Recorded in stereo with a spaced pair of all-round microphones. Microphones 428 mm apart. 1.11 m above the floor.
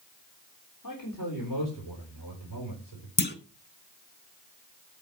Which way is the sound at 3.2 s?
25° left (ahead or behind).